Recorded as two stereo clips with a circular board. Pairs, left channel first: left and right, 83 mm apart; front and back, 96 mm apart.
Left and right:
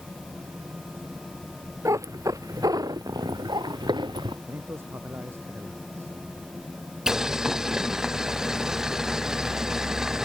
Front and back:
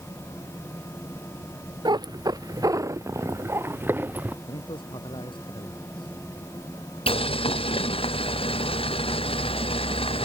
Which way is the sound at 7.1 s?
5° right.